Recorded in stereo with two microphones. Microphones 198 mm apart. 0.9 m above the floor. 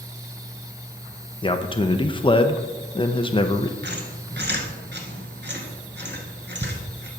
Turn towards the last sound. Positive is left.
turn(degrees=-60)  # may be behind; listen again after turning